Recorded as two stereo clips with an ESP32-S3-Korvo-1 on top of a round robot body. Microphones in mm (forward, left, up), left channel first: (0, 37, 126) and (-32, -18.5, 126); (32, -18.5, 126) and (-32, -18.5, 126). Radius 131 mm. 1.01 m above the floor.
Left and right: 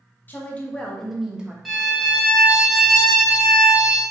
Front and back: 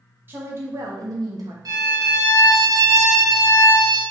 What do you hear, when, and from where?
0.3 s a woman speaking: 120° left, 1.5 m; by 1.6 s 165° left, 1.4 m
1.6 s a violin: 150° left, 1.5 m